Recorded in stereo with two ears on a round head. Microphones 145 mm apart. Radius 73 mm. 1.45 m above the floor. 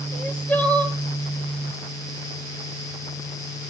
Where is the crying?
10° left (ahead or behind), 0.9 m.